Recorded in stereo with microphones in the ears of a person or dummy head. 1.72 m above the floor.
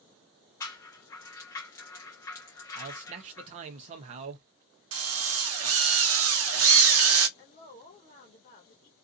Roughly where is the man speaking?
Right.